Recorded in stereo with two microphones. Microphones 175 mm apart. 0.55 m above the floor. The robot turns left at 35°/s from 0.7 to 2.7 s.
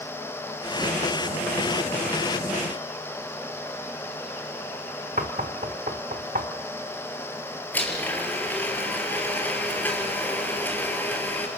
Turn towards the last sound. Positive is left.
turn(degrees=10)  # may be behind; listen again after turning